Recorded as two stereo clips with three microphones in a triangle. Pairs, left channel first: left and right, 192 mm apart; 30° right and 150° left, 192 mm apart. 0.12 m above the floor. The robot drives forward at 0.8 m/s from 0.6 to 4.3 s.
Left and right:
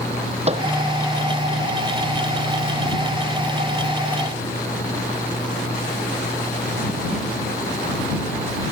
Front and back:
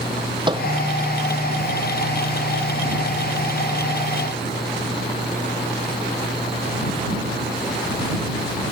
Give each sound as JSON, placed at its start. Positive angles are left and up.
{"t": 0.5, "sound": "a microwave", "azimuth_deg": -145}